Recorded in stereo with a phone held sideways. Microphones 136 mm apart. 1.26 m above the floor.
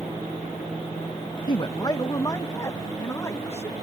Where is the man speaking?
35° left (ahead or behind); by 3.7 s 20° left (ahead or behind).